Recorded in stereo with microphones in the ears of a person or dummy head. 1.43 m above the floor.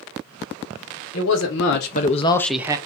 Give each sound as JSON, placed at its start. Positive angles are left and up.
{"t": 1.1, "sound": "a man speaking", "side_deg": 75, "distance_m": 1.4}